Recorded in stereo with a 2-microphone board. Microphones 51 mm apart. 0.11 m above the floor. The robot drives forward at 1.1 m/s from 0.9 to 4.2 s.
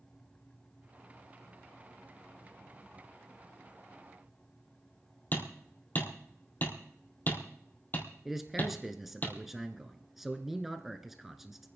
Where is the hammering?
40° left (ahead or behind), 3 m.